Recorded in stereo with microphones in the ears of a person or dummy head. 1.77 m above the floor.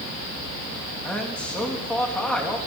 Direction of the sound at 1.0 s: 5° left (ahead or behind).